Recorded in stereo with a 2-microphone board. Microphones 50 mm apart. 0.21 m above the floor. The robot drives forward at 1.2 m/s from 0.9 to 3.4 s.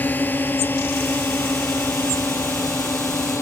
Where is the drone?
40° left (ahead or behind); by 3.4 s 60° left (ahead or behind).